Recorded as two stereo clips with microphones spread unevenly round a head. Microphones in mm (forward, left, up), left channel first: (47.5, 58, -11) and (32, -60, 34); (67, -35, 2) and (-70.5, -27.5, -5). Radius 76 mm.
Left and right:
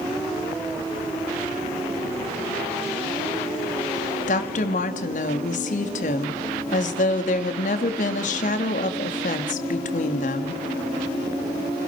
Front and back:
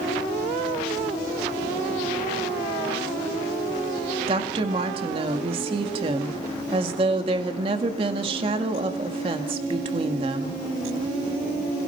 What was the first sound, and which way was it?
A woman speaking, 115° left.